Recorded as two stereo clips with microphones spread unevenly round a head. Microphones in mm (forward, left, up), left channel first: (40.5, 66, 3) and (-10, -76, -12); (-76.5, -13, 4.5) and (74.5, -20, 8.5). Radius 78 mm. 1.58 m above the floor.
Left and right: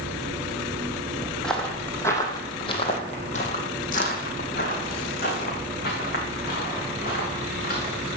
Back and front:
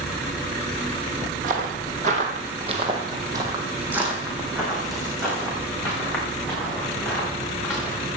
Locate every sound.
1.4 s footsteps: 10° right, 3 m; by 8.2 s 105° left, 8 m